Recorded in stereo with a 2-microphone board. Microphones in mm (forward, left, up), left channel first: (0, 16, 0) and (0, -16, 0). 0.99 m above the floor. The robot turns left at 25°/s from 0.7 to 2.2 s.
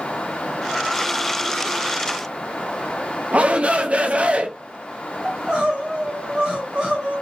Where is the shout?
40° right (ahead or behind), 0.5 m.